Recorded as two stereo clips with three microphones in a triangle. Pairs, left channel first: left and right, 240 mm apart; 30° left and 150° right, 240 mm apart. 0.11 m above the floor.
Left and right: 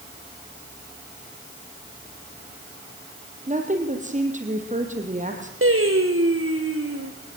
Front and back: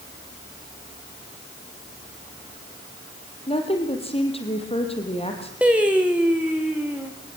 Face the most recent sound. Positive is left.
turn(degrees=-65)